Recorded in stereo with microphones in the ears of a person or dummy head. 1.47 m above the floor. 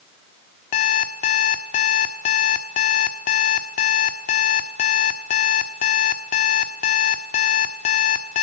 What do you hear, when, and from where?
0.7 s an alarm clock: 30° left (ahead or behind), 1.2 m